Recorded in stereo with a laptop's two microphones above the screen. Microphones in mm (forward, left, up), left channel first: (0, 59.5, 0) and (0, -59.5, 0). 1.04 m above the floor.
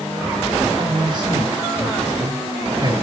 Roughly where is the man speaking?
Right.